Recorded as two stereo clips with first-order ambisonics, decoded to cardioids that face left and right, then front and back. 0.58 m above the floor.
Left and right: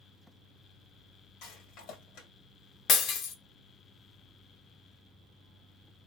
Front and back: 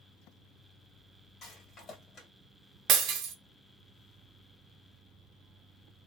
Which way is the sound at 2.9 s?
135° left.